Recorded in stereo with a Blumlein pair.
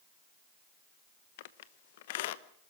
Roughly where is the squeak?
Ahead left.